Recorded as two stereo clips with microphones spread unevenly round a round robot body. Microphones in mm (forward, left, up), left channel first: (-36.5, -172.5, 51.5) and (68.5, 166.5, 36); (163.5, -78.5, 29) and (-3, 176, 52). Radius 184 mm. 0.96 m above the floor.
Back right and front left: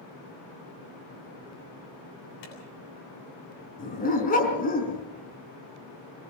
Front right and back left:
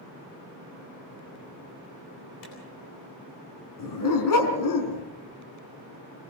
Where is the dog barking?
40° right, 4.5 m.